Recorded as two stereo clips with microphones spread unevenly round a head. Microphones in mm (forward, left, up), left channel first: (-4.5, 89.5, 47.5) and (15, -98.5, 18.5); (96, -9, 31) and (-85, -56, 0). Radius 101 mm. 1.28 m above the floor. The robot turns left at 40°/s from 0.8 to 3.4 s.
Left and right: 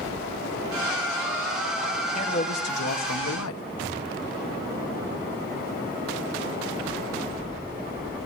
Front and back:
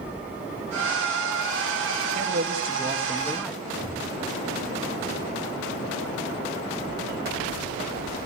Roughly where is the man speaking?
Behind left.